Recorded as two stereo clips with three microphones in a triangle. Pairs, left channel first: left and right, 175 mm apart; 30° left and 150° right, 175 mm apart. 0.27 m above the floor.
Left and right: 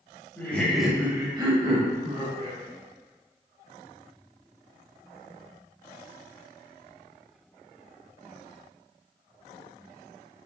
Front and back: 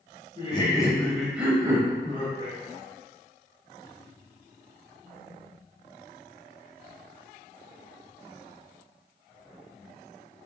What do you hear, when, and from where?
0.4 s laughter: 25° left, 1.1 m; by 2.6 s 110° right, 1.5 m